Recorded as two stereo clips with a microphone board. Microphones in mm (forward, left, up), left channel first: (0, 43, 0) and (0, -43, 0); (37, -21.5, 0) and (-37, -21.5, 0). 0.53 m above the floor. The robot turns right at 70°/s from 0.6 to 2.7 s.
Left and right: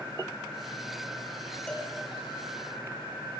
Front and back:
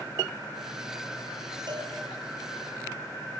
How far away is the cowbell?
About 6.5 m.